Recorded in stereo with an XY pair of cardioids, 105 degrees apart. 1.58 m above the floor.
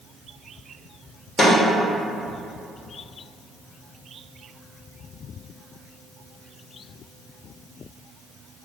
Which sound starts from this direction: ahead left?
A snare drum, at 1.4 s.